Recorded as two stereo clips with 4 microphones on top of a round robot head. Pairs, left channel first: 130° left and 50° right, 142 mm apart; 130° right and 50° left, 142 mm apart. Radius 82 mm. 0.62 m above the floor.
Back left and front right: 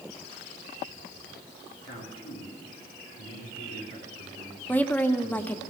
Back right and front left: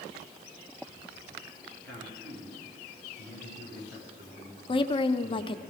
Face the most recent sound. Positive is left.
turn(degrees=-155)